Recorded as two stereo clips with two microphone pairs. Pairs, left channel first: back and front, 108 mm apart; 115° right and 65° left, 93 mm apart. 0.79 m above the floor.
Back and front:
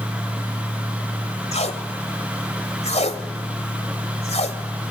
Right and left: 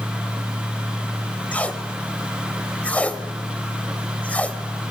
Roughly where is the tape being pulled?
Behind.